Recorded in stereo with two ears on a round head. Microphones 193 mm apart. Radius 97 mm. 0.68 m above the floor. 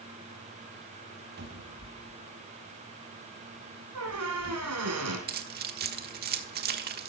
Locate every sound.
1.4 s a cupboard door: 50° right (ahead or behind), 3 m
4.0 s a squeak: 80° right, 4 m
5.3 s keys jangling: 45° right (ahead or behind), 1.2 m